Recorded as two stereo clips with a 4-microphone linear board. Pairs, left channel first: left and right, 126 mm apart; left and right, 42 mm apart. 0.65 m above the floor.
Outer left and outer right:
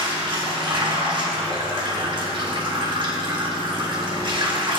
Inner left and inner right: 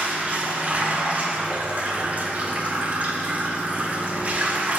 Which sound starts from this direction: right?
Running water, at 0.0 s.